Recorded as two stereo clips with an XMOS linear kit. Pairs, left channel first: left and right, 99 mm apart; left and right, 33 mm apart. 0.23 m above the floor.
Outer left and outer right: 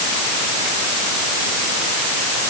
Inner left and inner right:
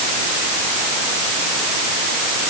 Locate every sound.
Only background noise.